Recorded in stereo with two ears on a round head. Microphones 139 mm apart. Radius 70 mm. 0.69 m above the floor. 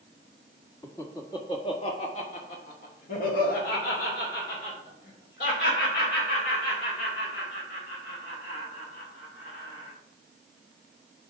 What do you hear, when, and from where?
0.8 s laughter: 15° left (ahead or behind), 1.3 m; by 9.9 s 75° left (ahead or behind), 5.5 m